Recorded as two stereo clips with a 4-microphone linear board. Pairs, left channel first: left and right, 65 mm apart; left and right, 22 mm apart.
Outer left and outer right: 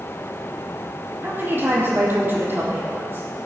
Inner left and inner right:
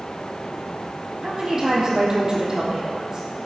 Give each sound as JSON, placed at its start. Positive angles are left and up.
{"t": 1.2, "sound": "a woman speaking", "side_deg": -35, "distance_m": 3.5}